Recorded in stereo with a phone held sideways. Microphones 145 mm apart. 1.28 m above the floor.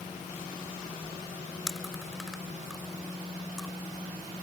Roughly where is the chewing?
Centre.